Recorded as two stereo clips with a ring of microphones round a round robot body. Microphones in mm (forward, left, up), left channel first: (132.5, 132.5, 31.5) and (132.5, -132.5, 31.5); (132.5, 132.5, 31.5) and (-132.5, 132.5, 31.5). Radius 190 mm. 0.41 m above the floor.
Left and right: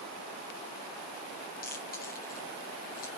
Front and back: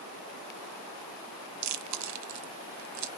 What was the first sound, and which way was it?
Chewing, 160° left.